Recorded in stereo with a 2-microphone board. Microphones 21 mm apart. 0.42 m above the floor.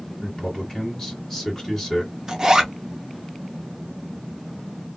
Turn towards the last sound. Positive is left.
turn(degrees=-25)  # may be behind; listen again after turning